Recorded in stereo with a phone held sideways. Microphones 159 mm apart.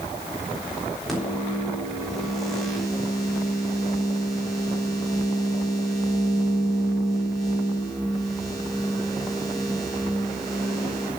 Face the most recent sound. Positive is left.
turn(degrees=0)  # may be behind; listen again after turning